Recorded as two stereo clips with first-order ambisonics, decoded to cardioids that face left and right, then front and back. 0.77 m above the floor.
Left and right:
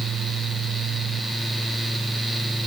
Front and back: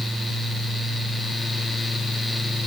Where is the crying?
No crying in this recording.